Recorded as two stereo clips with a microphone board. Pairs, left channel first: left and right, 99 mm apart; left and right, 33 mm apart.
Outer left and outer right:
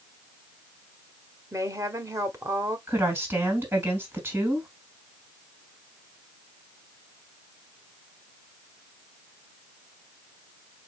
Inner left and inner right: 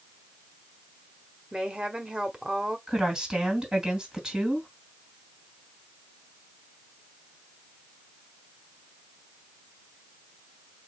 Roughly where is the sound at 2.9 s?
Right.